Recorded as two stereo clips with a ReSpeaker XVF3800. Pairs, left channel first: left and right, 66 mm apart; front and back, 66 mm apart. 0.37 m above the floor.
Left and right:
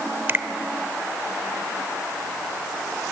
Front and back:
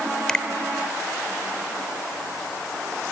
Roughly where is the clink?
No clink in this recording.